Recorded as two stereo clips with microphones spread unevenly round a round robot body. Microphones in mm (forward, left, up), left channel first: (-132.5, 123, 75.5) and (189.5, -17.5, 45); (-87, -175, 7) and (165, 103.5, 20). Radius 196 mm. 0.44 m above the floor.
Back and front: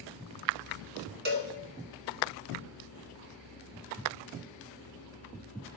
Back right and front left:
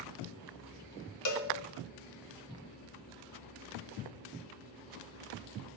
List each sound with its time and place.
1.2 s a cowbell: 90° right, 1.8 m